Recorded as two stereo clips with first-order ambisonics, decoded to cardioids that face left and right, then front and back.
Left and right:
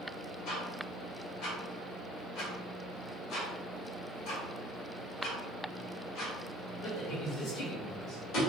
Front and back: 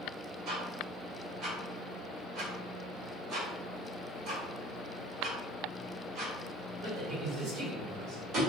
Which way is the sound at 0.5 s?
130° left.